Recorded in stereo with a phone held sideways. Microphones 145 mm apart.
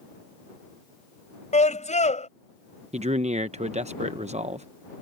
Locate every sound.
1.5 s a scream: 55° left (ahead or behind)
2.9 s a man speaking: 50° right (ahead or behind)